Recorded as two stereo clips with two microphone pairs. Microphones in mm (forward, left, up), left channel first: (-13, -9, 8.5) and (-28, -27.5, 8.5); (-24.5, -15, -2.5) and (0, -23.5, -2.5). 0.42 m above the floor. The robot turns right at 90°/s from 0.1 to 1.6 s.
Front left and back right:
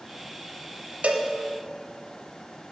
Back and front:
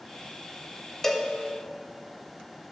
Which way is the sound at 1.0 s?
125° right.